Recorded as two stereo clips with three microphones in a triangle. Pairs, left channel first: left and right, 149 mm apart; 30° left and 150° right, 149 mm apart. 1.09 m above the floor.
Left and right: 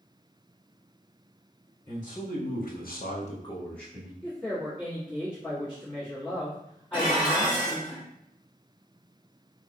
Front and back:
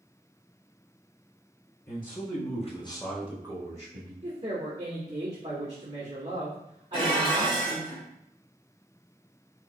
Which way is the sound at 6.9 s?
55° left.